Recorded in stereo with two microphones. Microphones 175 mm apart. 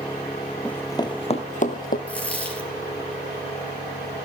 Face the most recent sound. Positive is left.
turn(degrees=10)  # may be behind; listen again after turning